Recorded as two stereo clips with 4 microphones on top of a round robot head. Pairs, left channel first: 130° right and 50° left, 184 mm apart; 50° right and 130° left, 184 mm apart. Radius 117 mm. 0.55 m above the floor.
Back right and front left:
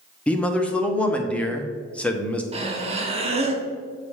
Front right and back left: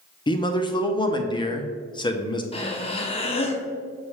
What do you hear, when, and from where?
0.3 s a man speaking: 55° right, 0.9 m
2.5 s breathing: straight ahead, 1.0 m